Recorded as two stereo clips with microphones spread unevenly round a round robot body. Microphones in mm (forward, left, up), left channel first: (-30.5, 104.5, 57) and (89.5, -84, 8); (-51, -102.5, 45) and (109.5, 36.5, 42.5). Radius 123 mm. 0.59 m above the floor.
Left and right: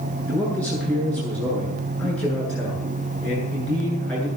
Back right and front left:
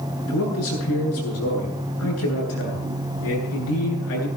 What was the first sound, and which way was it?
A man speaking, 155° right.